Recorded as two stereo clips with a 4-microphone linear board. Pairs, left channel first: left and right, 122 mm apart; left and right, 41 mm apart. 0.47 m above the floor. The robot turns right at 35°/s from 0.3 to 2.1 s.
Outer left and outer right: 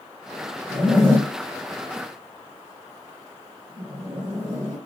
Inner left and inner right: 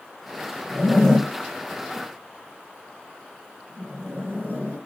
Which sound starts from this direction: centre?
A zipper, at 0.7 s.